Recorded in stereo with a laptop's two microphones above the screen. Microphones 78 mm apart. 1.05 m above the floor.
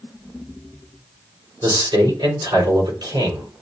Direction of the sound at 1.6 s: 80° right.